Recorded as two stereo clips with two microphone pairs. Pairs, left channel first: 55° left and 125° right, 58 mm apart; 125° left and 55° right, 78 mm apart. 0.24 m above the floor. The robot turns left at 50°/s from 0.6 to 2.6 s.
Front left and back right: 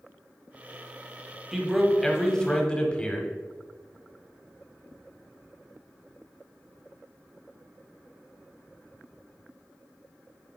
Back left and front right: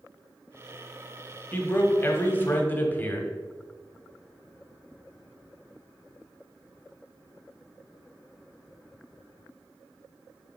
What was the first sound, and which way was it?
A man speaking, 155° left.